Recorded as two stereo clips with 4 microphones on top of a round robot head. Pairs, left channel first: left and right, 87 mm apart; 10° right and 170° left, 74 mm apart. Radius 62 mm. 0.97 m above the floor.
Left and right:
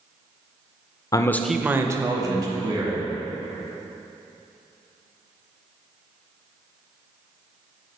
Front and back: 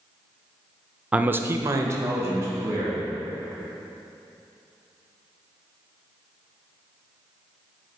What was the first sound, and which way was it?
A man speaking, 105° left.